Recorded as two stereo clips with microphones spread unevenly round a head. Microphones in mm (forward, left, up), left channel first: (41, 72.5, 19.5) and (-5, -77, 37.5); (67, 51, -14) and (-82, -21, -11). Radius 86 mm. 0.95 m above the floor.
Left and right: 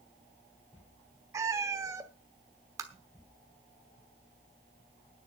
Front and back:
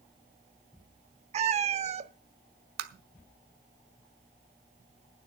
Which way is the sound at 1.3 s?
160° right.